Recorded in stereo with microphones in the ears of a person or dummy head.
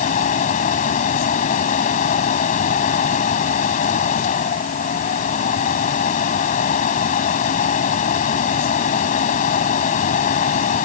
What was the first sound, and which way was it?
A fan, 40° left (ahead or behind).